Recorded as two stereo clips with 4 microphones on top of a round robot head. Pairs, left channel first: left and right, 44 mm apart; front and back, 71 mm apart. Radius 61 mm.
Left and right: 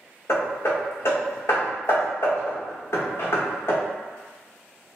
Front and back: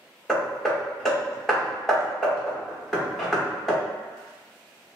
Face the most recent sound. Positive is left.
turn(degrees=85)